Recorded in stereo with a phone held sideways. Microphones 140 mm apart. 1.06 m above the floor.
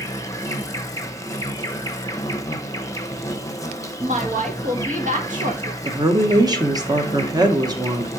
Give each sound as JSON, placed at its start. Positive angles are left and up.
{"t": 0.0, "sound": "an insect", "side_deg": 25, "distance_m": 0.8}
{"t": 4.0, "sound": "a woman speaking", "side_deg": -65, "distance_m": 1.6}
{"t": 5.8, "sound": "a woman speaking", "side_deg": -30, "distance_m": 1.0}